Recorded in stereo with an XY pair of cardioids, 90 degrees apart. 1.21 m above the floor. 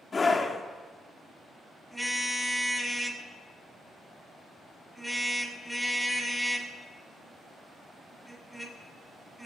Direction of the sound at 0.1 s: 30° left.